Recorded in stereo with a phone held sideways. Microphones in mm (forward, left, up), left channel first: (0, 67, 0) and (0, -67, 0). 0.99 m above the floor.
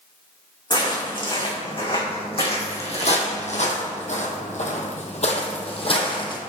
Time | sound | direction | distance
0.7 | footsteps | 40° left (ahead or behind) | 4 m